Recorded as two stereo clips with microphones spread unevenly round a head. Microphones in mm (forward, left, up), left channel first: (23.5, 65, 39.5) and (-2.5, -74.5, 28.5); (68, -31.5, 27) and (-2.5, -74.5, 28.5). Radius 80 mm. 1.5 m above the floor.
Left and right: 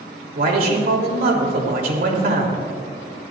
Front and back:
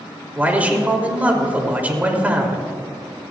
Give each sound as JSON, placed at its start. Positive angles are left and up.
{"t": 0.3, "sound": "a man speaking", "azimuth_deg": -80, "distance_m": 3.0}